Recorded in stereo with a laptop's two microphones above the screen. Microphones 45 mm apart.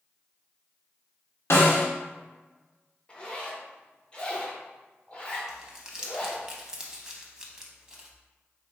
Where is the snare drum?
70° left (ahead or behind), 1.4 m.